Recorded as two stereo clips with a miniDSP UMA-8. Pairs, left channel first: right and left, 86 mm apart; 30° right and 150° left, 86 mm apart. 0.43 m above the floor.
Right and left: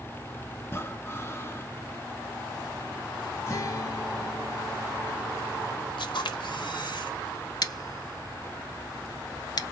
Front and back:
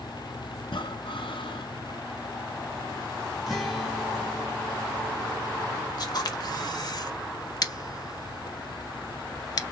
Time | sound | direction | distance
0.6 | breathing | 30° right | 0.8 m
3.5 | a guitar | 125° right | 1.8 m
6.0 | a camera shutter | 65° right | 1.1 m
7.6 | scissors | 65° right | 0.5 m